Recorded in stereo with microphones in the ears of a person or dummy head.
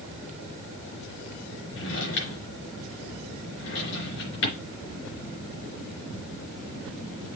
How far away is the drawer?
About 3.5 m.